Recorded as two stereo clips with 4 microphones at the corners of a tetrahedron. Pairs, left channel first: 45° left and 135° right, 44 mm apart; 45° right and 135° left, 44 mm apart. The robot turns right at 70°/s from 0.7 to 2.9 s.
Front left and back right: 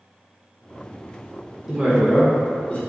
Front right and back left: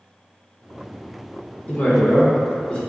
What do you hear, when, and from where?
1.7 s a woman speaking: 70° right, 0.9 m; by 2.8 s 10° left, 0.9 m